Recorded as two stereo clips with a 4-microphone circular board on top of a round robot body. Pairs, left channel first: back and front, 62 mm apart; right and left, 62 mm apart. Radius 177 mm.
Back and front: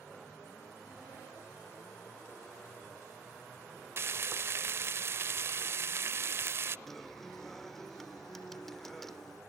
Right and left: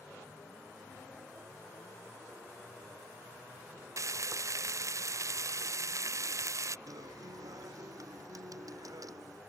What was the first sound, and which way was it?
Frying, 50° left.